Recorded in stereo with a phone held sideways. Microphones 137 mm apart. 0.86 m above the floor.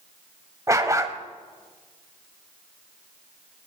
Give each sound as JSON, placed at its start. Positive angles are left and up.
{"t": 0.7, "sound": "a dog barking", "side_deg": -25, "distance_m": 1.0}